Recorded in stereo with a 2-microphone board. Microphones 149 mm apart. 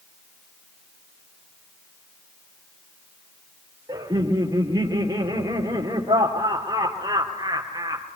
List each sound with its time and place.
3.9 s laughter: 25° right (ahead or behind), 3 m